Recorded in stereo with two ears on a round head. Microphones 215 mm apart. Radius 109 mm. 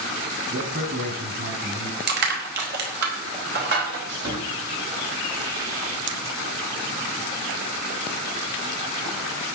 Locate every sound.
0.5 s a man speaking: 40° right (ahead or behind), 5.5 m; by 2.0 s 45° right (ahead or behind), 6 m
2.1 s crushing: 45° right (ahead or behind), 3.5 m
4.1 s sawing: 65° right (ahead or behind), 7 m
6.1 s scissors: 55° right (ahead or behind), 1.2 m